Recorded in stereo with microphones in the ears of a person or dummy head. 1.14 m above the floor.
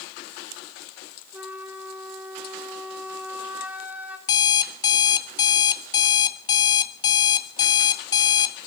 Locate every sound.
1.3 s a flute: 5° right (ahead or behind), 1.1 m
4.3 s an alarm clock: 25° left (ahead or behind), 0.8 m